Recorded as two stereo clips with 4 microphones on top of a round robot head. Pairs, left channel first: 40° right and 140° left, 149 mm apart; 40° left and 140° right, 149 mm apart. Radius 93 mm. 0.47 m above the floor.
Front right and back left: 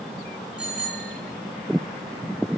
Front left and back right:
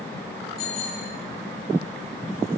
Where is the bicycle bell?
55° left, 9 m.